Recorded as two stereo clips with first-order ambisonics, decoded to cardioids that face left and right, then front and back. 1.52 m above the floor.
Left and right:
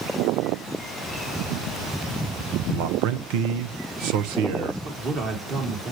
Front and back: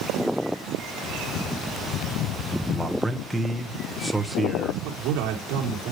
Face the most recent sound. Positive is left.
turn(degrees=-150)